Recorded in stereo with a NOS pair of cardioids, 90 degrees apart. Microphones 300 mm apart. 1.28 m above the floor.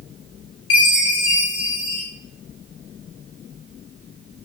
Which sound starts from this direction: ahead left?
A chime, at 0.7 s.